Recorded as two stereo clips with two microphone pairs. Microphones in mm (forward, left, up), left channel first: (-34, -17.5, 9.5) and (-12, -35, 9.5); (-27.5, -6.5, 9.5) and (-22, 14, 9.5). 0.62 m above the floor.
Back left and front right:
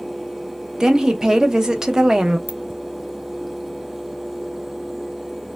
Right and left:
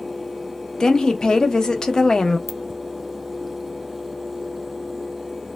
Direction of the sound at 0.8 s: 100° right.